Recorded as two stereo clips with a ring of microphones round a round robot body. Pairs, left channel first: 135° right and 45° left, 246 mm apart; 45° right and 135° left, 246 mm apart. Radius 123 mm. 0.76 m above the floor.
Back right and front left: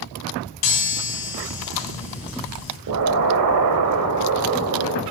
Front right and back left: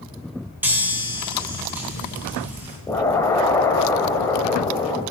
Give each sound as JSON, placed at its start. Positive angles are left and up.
{"t": 0.6, "sound": "a chime", "azimuth_deg": -140, "distance_m": 3.0}
{"t": 2.9, "sound": "an explosion", "azimuth_deg": 35, "distance_m": 1.0}